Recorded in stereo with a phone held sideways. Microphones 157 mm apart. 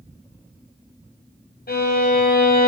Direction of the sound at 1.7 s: 80° left.